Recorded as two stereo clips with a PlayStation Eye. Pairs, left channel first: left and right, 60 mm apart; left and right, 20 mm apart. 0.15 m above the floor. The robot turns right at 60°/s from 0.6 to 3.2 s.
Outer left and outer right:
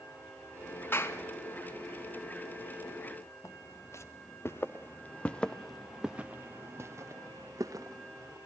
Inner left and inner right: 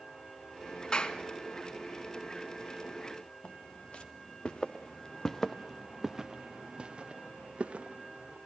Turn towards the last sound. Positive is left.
turn(degrees=-75)  # may be behind; listen again after turning